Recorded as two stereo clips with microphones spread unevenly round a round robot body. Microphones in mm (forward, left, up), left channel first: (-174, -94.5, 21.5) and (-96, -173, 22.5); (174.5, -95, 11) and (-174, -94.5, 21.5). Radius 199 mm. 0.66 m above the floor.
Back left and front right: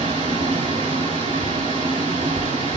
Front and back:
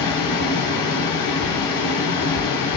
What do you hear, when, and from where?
0.0 s running water: 35° right, 3 m